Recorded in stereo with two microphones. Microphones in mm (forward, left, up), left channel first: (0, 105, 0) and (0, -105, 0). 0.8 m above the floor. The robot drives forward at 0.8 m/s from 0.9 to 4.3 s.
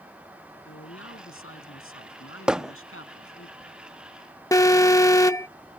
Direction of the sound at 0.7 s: 85° left.